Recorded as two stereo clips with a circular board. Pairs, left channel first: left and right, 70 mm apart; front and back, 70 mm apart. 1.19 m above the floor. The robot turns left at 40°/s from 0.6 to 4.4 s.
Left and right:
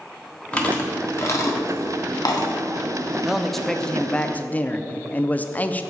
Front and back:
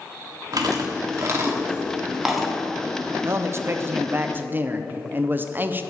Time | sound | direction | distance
0.5 | chewing | 160° left | 1.4 m
3.2 | a man speaking | 170° right | 0.5 m